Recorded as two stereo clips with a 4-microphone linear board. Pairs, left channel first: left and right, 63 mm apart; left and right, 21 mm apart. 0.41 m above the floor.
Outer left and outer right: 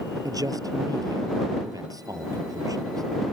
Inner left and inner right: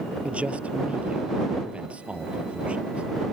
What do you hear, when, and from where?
0.2 s a man speaking: 80° right